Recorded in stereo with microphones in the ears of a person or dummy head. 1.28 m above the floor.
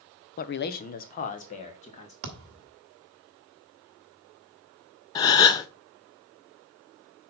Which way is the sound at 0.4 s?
45° left (ahead or behind).